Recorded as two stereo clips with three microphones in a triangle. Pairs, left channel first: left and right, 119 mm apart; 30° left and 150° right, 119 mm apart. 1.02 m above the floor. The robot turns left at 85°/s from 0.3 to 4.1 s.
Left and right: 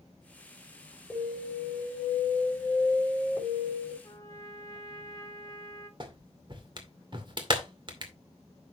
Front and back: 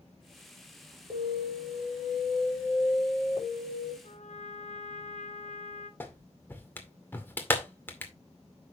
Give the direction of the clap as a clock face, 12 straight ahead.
1 o'clock.